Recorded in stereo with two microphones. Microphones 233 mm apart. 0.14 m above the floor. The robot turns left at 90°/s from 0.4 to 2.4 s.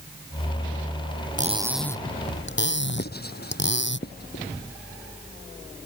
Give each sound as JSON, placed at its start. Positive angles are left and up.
{"t": 1.4, "sound": "cutlery clinking", "azimuth_deg": -145}
{"t": 3.0, "sound": "writing", "side_deg": 45}